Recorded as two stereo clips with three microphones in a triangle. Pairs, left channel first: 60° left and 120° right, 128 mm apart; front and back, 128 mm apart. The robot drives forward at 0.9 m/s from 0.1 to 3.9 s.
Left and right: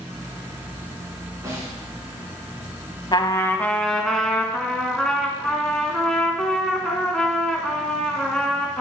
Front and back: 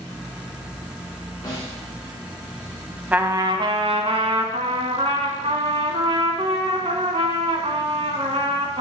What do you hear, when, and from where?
1.4 s a snare drum: 55° right, 3.5 m; by 1.8 s 60° right, 3 m
3.1 s a trumpet: 105° left, 0.6 m; by 8.8 s 145° left, 1.0 m